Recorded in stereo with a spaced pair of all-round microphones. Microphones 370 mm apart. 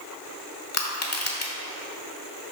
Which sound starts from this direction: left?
Crushing, at 0.7 s.